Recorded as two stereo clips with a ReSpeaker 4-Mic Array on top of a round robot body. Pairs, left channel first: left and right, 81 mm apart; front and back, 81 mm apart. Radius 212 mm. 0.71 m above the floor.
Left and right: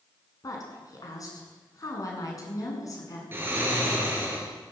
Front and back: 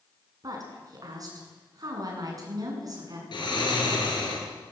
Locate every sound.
0.4 s a woman speaking: 135° left, 8 m
3.3 s snoring: 25° right, 7.5 m